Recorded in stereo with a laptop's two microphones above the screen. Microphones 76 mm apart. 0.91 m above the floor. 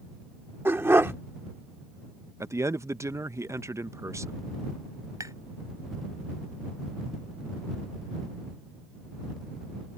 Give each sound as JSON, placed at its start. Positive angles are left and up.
{"t": 0.7, "sound": "a dog barking", "side_deg": -35}
{"t": 2.4, "sound": "a man speaking", "side_deg": -40}
{"t": 5.2, "sound": "tapping", "side_deg": -50}